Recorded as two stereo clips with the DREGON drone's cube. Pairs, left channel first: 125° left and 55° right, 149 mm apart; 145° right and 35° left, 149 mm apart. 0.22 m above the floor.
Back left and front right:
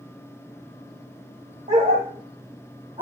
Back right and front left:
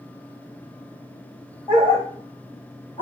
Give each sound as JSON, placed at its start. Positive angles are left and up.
{"t": 1.7, "sound": "a dog barking", "azimuth_deg": -90, "distance_m": 5.5}